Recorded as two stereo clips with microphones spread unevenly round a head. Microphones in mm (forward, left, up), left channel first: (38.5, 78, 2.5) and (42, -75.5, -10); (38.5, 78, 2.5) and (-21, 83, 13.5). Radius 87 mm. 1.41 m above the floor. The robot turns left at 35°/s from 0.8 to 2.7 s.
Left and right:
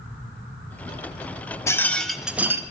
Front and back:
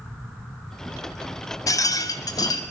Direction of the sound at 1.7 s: 20° left.